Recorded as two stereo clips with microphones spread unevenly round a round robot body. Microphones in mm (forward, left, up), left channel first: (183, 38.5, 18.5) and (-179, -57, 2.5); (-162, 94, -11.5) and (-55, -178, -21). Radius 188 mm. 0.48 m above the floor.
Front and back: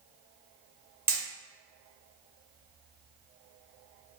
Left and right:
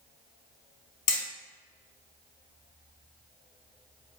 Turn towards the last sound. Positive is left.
turn(degrees=110)